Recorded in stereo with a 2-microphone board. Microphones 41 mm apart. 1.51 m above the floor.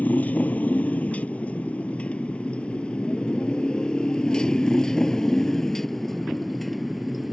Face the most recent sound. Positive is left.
turn(degrees=0)  # may be behind; listen again after turning